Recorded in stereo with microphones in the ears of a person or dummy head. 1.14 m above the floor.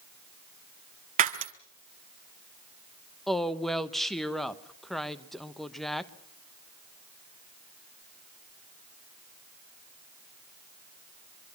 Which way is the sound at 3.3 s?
Centre (ahead or behind).